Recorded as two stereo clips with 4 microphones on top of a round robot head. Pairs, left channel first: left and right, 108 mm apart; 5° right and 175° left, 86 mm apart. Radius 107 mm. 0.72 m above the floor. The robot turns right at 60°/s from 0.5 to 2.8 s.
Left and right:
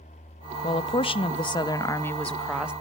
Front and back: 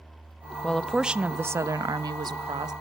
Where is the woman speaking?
70° left, 0.9 m; by 2.7 s 165° right, 0.9 m.